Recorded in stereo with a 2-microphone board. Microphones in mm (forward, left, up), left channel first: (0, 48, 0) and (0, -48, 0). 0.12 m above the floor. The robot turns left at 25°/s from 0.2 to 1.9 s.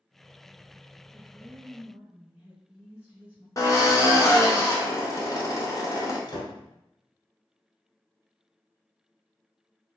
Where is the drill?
35° left (ahead or behind), 0.8 m.